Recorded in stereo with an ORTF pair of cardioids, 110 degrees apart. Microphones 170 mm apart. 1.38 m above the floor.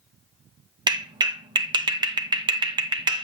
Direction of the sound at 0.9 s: 25° right.